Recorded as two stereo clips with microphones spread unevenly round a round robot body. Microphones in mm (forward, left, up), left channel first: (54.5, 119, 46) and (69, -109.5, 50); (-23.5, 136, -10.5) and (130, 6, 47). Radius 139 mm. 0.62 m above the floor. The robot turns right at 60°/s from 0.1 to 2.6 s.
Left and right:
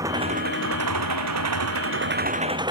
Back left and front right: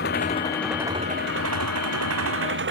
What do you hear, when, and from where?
0.0 s an engine running: 165° right; by 2.7 s 15° right